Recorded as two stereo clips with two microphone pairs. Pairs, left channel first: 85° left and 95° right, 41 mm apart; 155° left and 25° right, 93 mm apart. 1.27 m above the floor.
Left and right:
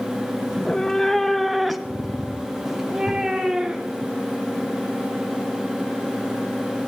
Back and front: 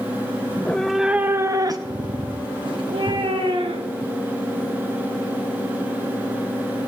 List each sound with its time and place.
0.5 s a cat meowing: 125° left, 0.6 m; by 4.1 s 20° right, 2.0 m